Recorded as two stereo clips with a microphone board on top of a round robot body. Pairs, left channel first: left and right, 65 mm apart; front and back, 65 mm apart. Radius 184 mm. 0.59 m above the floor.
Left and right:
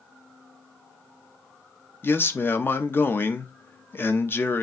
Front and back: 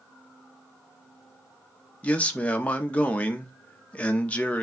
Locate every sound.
2.0 s a man speaking: 60° left, 0.9 m